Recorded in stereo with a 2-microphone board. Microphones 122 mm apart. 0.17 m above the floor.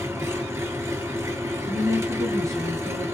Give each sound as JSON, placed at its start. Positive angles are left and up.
{"t": 0.0, "sound": "an engine running", "side_deg": -20, "distance_m": 1.1}
{"t": 1.6, "sound": "a woman speaking", "side_deg": -25, "distance_m": 1.5}